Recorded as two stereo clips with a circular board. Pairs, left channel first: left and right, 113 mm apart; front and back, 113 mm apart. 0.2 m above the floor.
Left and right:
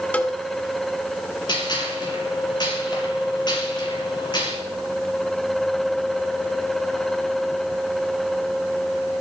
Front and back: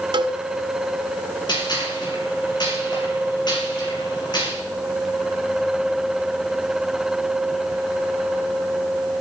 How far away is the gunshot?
About 5.5 m.